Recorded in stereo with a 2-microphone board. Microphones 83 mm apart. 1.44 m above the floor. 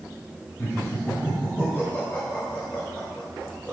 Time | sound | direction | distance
0.6 | laughter | 30° left (ahead or behind) | 5 m